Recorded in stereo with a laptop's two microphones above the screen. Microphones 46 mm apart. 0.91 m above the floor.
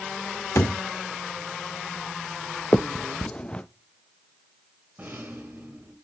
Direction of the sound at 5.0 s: 45° right (ahead or behind).